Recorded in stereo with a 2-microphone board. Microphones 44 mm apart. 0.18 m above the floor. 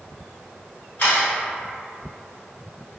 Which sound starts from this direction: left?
A camera shutter, at 1.0 s.